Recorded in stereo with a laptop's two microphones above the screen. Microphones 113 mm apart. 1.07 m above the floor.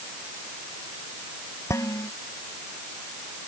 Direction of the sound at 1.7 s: 25° left (ahead or behind).